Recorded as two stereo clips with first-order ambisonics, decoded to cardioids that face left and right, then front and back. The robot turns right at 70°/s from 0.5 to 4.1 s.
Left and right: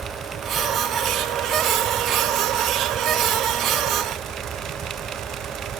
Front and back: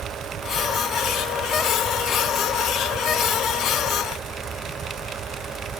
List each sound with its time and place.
Only background noise.